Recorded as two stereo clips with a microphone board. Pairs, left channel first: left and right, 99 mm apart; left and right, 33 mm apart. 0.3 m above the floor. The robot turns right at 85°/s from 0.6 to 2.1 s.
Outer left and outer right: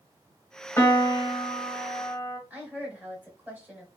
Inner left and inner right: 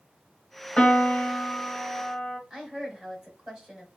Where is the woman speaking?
15° right (ahead or behind), 1.6 m.